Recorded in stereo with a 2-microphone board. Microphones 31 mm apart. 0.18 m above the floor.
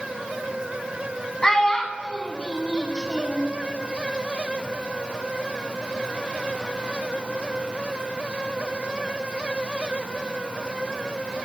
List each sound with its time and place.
1.4 s a child speaking: 20° left (ahead or behind), 0.9 m